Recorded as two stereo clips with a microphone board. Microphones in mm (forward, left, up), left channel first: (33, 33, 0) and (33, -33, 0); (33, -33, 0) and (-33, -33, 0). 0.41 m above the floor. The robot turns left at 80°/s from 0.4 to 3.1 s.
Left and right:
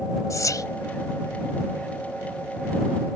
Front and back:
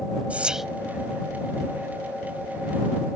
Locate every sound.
0.3 s whispering: 110° left; by 0.7 s 90° left